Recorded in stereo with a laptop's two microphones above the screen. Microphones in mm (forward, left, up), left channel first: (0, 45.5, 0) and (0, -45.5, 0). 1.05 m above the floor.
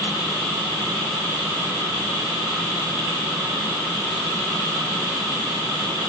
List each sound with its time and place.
Only background noise.